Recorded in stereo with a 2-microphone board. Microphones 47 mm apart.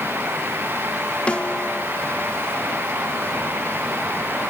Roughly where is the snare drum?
Left.